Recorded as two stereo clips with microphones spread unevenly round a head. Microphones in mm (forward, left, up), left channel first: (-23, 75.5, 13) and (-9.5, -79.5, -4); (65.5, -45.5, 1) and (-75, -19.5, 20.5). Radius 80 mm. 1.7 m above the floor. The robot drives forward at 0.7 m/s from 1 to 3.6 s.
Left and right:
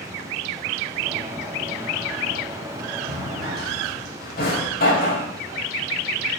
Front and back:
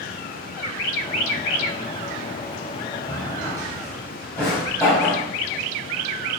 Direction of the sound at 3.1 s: 65° left.